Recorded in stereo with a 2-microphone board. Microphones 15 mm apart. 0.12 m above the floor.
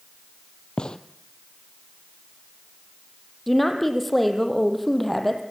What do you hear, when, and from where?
0.8 s a gunshot: 70° left (ahead or behind), 1.1 m
3.5 s a woman speaking: 15° left (ahead or behind), 3.5 m